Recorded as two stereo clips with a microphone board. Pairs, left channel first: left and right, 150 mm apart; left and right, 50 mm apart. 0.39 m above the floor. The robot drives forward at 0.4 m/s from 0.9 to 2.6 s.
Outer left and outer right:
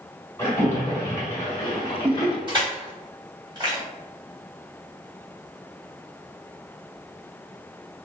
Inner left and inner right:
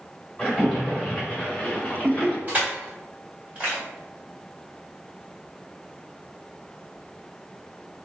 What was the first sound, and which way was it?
A splash, 20° left (ahead or behind).